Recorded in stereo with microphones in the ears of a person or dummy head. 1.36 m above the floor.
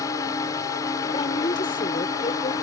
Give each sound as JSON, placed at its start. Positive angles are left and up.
{"t": 0.0, "sound": "a drone", "side_deg": 15}
{"t": 1.1, "sound": "a woman speaking", "side_deg": 25}